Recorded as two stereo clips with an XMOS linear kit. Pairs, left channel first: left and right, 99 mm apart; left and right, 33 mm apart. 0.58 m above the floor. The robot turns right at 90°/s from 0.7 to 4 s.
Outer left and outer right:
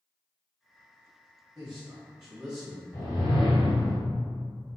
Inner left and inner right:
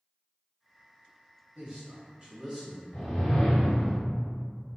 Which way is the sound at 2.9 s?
25° left.